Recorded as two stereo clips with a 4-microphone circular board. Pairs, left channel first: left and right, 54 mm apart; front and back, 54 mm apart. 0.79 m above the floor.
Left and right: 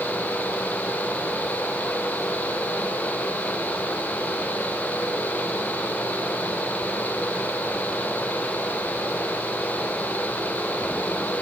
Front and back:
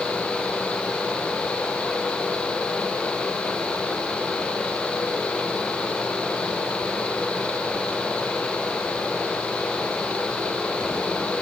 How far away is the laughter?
No laughter in this recording.